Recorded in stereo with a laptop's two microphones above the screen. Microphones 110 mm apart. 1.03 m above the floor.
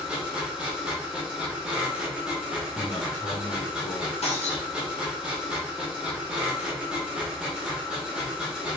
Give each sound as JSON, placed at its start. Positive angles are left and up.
{"t": 0.0, "sound": "a machine running", "side_deg": -10, "distance_m": 0.8}
{"t": 2.7, "sound": "a man speaking", "side_deg": 70, "distance_m": 1.3}
{"t": 4.2, "sound": "breaking glass", "side_deg": 75, "distance_m": 1.1}